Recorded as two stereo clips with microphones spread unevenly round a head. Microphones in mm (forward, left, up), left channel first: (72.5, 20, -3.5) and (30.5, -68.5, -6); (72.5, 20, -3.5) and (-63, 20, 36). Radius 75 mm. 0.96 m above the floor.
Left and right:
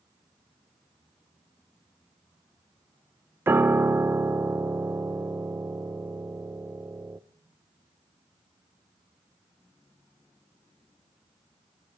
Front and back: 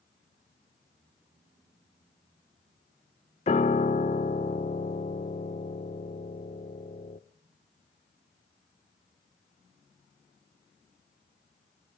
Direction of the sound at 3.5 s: 55° right.